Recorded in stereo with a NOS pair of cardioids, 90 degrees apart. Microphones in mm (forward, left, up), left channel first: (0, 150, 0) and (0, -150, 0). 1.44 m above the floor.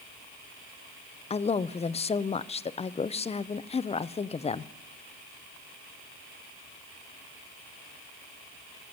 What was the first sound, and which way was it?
A man speaking, 20° left.